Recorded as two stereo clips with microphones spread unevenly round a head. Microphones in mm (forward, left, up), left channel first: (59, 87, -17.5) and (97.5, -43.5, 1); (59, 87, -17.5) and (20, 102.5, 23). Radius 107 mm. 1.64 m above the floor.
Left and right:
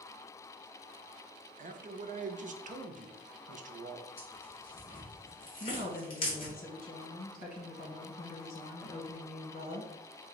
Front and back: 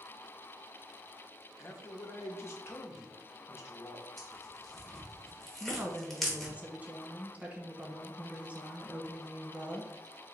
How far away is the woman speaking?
About 1.3 m.